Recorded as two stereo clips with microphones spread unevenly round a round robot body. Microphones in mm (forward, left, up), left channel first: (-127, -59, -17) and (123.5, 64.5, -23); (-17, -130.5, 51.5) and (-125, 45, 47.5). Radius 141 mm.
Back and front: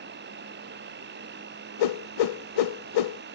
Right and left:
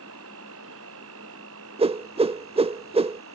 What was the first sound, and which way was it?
An insect, 85° left.